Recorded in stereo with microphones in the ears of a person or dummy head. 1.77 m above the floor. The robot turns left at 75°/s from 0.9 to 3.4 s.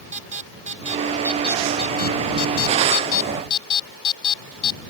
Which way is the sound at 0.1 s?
35° right (ahead or behind).